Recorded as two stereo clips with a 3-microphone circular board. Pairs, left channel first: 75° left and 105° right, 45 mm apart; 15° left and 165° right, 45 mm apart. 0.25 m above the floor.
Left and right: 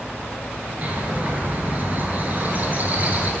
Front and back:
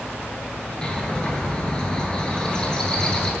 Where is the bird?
55° right, 0.7 m.